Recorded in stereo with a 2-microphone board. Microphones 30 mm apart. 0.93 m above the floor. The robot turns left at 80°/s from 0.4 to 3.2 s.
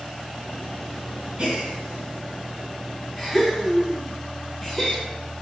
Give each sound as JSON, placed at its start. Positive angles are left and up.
{"t": 1.4, "sound": "a gasp", "side_deg": -40, "distance_m": 1.7}